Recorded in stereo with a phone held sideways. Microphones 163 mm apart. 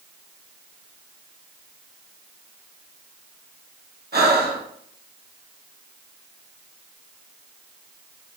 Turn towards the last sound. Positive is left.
turn(degrees=-75)  # may be behind; listen again after turning